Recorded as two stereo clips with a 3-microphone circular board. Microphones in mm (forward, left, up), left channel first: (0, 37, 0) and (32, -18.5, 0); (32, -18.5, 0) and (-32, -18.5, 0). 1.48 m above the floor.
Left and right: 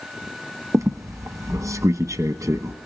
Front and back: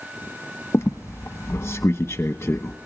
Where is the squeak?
45° right, 1.0 m.